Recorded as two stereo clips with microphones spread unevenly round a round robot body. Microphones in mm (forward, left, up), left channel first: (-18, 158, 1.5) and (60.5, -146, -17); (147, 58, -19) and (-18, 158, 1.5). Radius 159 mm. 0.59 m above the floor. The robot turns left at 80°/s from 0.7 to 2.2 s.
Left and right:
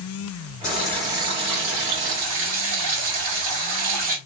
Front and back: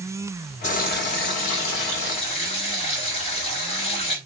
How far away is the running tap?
About 1.8 m.